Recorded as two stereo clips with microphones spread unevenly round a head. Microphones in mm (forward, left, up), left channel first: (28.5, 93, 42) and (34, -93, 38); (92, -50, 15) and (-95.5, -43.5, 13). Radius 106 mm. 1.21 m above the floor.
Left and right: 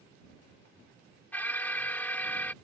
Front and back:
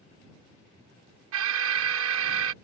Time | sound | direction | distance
1.3 | an alarm | 175° left | ?